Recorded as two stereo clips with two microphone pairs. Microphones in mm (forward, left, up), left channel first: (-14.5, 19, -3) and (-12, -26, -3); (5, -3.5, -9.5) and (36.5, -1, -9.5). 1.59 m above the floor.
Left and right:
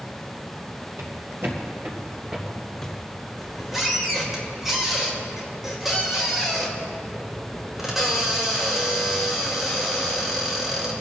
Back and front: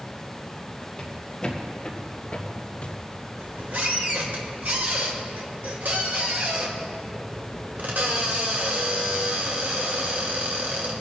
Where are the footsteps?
105° right, 3 m; by 3.0 s 170° left, 2.0 m.